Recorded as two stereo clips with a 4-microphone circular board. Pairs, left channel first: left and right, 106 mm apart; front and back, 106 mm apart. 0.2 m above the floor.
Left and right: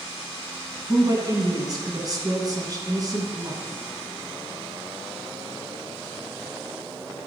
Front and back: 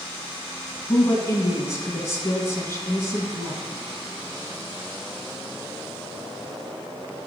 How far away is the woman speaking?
About 1.5 m.